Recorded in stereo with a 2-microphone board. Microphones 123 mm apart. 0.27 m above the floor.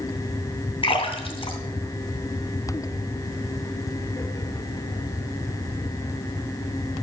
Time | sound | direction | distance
0.8 | a splash | 40° left (ahead or behind) | 2.5 m